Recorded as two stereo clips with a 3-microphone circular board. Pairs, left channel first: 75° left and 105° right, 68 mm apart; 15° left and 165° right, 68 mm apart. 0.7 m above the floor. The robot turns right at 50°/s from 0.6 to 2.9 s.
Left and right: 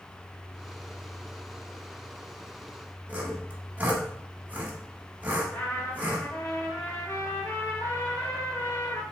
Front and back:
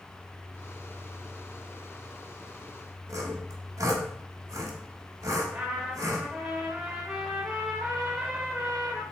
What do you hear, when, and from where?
3.1 s sawing: 160° right, 0.9 m
5.5 s a trumpet: 120° left, 0.9 m